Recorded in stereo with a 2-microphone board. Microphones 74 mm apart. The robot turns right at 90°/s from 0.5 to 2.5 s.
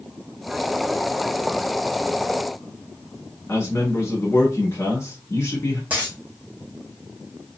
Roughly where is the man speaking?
Left.